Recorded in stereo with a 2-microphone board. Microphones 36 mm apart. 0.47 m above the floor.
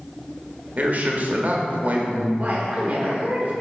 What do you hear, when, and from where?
0.8 s a man speaking: 45° right (ahead or behind), 1.2 m
2.4 s a woman speaking: 35° right (ahead or behind), 1.1 m